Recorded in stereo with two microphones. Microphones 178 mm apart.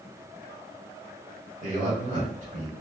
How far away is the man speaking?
About 1.7 m.